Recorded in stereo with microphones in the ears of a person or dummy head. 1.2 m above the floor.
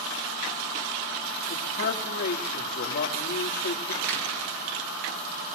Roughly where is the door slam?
Right.